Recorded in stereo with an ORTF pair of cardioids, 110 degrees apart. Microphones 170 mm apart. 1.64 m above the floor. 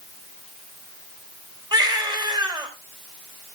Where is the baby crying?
25° right, 3.5 m.